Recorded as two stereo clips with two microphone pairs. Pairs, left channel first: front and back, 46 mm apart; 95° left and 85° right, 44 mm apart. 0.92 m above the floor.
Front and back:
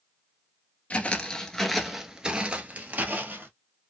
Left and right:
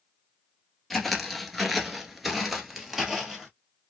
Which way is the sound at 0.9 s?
15° left.